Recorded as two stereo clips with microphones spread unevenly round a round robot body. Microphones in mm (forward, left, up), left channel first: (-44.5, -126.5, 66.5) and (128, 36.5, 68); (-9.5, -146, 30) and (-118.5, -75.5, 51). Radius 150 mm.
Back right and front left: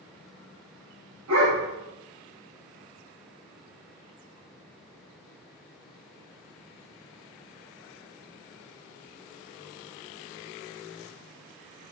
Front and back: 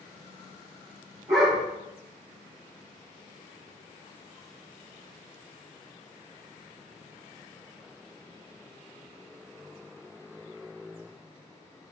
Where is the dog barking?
80° left, 5.5 m.